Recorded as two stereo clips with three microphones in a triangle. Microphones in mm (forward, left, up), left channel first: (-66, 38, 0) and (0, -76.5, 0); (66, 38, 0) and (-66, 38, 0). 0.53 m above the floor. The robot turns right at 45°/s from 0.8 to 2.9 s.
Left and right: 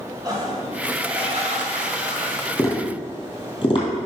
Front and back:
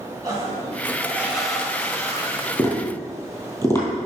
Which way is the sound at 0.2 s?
120° right.